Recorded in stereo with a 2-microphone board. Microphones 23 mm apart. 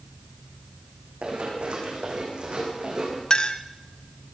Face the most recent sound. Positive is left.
turn(degrees=40)  # may be behind; listen again after turning